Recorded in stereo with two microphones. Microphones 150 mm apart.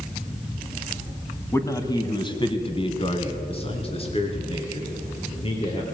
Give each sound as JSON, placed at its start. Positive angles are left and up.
{"t": 1.5, "sound": "a man speaking", "side_deg": 15, "distance_m": 1.5}